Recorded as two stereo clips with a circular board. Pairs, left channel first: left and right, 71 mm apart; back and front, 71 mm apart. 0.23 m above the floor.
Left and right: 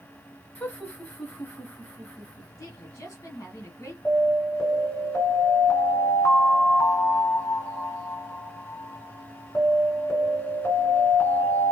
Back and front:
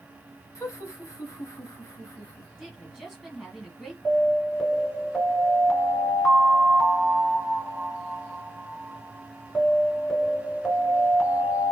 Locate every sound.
0.6 s laughter: 150° left, 1.7 m
2.6 s a woman speaking: 90° left, 1.9 m
4.0 s an alarm: 100° left, 3 m